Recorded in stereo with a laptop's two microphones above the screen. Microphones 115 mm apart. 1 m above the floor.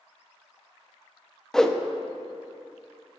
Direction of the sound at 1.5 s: 5° left (ahead or behind).